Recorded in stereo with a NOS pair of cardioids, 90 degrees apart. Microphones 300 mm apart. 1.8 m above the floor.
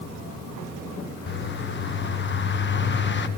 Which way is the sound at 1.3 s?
35° left.